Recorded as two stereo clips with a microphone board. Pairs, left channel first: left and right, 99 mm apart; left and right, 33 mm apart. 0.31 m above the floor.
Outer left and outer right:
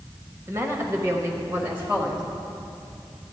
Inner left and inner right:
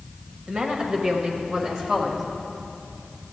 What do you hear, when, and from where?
0.5 s a woman speaking: 30° right (ahead or behind), 1.3 m; by 2.2 s 15° right (ahead or behind), 1.2 m